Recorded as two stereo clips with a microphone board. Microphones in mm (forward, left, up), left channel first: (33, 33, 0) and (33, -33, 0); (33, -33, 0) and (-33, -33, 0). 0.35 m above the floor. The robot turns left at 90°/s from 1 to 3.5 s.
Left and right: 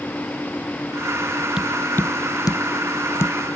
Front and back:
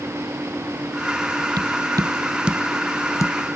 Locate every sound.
1.6 s tapping: 170° right; by 3.4 s 25° left